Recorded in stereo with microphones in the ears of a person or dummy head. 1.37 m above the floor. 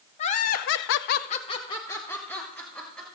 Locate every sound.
0.2 s laughter: 35° left (ahead or behind), 0.9 m; by 3.0 s 5° left (ahead or behind), 2 m